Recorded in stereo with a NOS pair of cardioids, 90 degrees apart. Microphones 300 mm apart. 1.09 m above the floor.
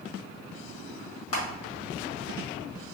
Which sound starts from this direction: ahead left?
Crushing, at 1.3 s.